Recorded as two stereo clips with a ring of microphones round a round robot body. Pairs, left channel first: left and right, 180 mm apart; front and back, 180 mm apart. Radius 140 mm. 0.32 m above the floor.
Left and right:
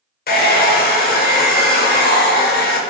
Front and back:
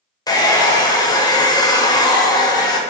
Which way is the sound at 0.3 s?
70° left.